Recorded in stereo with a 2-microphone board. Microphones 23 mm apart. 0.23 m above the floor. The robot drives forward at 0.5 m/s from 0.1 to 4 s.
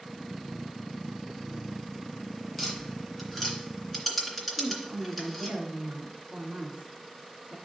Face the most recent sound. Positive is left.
turn(degrees=-50)  # may be behind; listen again after turning